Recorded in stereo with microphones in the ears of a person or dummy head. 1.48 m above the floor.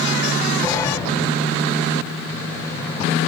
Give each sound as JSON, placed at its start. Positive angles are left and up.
{"t": 0.6, "sound": "a sliding door", "side_deg": 20, "distance_m": 1.4}